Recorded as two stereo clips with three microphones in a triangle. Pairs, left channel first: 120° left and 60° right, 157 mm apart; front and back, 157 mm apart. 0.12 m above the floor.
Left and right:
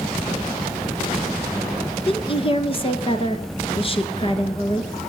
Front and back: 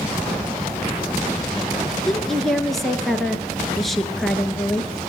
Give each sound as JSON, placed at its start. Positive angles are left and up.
{"t": 2.1, "sound": "a woman speaking", "azimuth_deg": 90, "distance_m": 1.4}